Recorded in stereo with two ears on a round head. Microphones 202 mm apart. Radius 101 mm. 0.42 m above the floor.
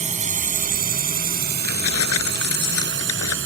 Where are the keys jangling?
70° left (ahead or behind).